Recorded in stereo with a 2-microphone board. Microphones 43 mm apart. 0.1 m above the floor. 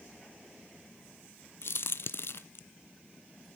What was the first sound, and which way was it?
A crack, 65° left (ahead or behind).